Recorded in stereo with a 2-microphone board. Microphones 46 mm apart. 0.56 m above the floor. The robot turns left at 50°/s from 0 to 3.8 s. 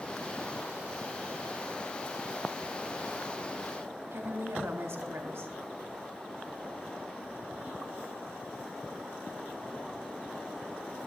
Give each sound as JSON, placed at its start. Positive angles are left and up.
{"t": 4.1, "sound": "a woman speaking", "side_deg": -65, "distance_m": 2.0}